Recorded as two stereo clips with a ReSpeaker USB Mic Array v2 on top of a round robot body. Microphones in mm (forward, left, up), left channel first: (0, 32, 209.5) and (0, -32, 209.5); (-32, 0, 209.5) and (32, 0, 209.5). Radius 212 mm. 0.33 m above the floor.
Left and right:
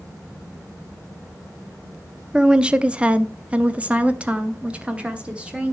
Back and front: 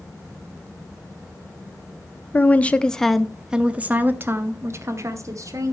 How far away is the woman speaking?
About 1.1 m.